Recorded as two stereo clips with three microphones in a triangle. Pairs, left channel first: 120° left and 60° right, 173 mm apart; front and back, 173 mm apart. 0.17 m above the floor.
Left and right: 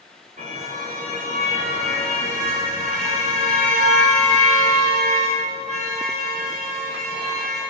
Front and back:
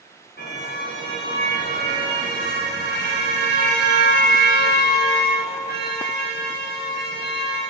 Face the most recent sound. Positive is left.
turn(degrees=-15)